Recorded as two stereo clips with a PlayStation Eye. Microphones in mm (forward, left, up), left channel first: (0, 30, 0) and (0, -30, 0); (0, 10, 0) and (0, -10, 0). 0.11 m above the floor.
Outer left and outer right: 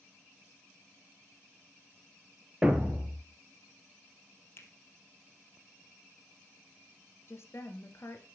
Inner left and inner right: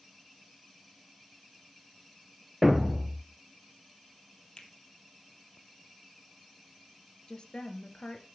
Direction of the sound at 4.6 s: 45° left (ahead or behind).